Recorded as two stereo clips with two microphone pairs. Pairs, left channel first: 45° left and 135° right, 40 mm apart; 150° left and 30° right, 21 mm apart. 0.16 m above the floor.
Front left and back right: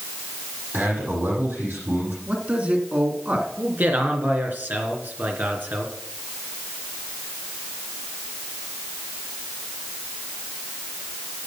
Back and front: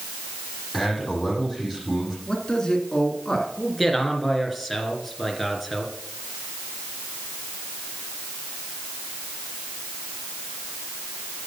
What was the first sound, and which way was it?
A man speaking, 110° right.